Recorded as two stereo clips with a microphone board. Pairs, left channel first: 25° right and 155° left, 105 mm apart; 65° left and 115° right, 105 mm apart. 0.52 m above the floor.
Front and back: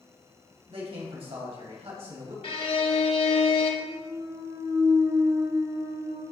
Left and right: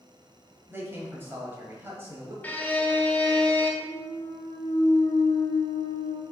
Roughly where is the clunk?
Left.